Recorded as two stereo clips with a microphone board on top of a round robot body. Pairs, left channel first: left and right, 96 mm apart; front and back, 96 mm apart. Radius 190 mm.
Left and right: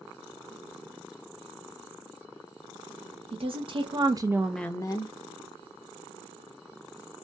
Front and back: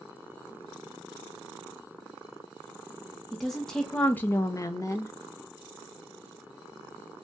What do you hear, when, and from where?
3.3 s a woman speaking: 90° right, 1.0 m; by 5.1 s 60° left, 0.7 m